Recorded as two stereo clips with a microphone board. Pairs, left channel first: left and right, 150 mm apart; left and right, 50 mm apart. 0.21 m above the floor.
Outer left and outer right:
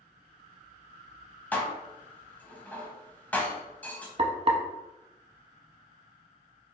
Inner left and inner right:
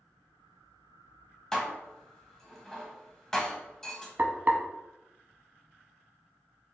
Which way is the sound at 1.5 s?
10° left (ahead or behind).